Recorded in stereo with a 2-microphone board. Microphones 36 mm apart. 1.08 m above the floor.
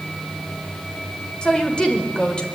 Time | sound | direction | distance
1.4 | a woman speaking | 30° left (ahead or behind) | 4.5 m